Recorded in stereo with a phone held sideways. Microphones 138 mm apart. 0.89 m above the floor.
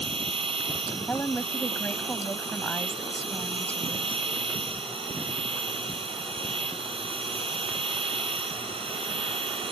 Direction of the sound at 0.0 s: 40° right (ahead or behind).